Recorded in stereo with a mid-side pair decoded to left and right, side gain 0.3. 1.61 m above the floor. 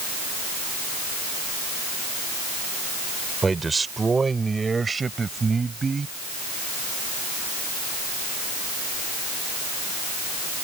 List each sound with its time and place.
3.4 s a man speaking: 40° right; by 6.1 s 45° right